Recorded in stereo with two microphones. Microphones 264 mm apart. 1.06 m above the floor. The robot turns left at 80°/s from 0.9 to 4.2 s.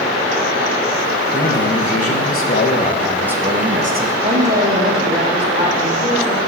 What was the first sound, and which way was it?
A man speaking, 150° left.